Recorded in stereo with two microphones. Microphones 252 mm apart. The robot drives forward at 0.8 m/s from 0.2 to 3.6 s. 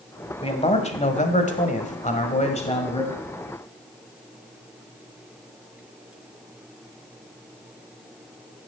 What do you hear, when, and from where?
0.4 s a man speaking: 25° left (ahead or behind), 1.7 m; by 3.2 s 20° left (ahead or behind), 1.8 m